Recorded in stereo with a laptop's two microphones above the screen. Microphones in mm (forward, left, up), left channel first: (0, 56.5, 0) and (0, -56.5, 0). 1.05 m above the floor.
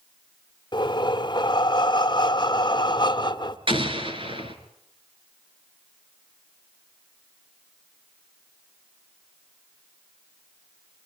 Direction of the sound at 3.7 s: 50° right (ahead or behind).